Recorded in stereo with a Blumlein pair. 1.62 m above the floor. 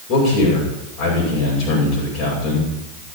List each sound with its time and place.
0.1 s a man speaking: 40° left, 8 m